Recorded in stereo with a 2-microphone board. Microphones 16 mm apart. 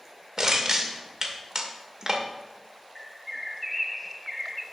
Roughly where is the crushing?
Right.